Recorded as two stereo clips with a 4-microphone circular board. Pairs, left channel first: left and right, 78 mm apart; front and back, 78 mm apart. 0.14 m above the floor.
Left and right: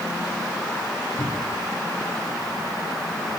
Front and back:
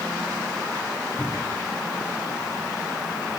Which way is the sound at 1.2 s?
75° left.